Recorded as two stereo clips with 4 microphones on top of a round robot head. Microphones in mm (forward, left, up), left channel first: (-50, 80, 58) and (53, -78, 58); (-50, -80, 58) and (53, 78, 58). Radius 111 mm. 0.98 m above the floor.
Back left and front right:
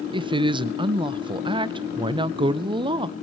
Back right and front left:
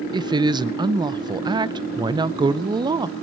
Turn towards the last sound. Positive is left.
turn(degrees=0)